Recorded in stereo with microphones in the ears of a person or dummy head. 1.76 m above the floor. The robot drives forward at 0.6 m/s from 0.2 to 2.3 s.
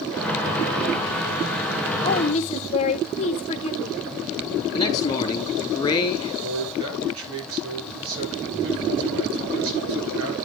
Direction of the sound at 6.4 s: 75° right (ahead or behind).